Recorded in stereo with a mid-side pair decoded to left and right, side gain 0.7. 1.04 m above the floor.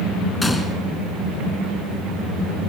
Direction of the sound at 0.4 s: 10° left.